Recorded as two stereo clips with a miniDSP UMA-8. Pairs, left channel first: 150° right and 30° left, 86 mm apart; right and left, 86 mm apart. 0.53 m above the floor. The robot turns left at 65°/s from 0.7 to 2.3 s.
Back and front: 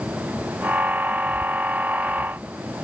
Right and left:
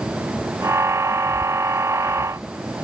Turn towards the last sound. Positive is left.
No sound to turn to.